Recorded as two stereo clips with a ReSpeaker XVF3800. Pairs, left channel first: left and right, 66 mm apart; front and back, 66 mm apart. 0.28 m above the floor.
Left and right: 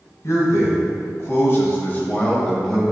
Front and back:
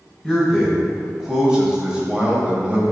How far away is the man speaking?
About 1.8 m.